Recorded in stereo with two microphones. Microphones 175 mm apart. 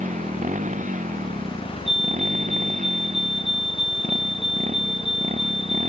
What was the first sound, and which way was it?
A motorcycle, 45° right (ahead or behind).